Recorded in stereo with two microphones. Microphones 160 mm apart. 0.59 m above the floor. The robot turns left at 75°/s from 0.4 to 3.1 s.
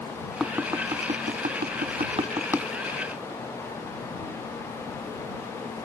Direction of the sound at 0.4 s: Centre (ahead or behind).